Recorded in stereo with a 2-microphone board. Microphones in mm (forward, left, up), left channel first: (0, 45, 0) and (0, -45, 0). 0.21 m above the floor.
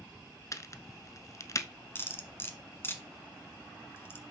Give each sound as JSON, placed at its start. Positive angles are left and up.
{"t": 0.5, "sound": "a crack", "side_deg": 40, "distance_m": 0.6}
{"t": 1.9, "sound": "cutlery clinking", "side_deg": 30, "distance_m": 1.2}